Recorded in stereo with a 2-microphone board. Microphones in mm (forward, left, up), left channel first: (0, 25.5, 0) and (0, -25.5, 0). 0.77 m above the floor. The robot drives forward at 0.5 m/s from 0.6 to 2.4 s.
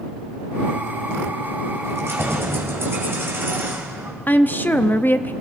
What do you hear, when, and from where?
1.8 s keys jangling: 60° right (ahead or behind), 2.5 m; by 4.1 s 55° right (ahead or behind), 3 m
4.3 s a woman speaking: 40° left (ahead or behind), 0.6 m